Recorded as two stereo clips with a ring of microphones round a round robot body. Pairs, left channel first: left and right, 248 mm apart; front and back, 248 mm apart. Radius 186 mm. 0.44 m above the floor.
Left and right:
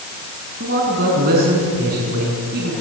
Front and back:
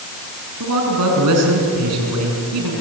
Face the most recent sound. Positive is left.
turn(degrees=-150)